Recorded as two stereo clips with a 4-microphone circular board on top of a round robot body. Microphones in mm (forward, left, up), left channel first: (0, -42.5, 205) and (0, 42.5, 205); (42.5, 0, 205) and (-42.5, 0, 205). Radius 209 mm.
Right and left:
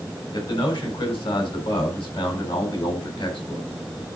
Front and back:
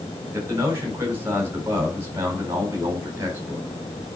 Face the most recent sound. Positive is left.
turn(degrees=-115)